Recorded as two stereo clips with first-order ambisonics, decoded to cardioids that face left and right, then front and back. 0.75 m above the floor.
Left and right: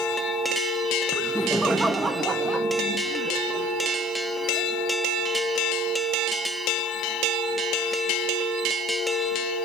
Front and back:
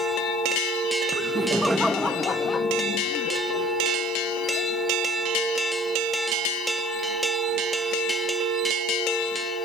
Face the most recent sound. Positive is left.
turn(degrees=-35)